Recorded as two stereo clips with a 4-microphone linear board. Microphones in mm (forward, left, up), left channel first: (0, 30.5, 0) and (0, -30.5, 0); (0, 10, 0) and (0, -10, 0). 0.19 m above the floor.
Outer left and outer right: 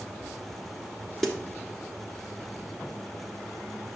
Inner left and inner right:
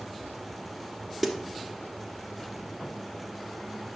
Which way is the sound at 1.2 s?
5° left (ahead or behind).